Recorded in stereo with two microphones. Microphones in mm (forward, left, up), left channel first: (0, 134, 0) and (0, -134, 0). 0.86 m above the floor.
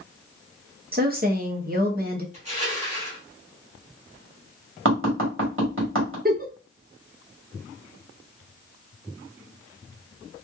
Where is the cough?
No cough in this recording.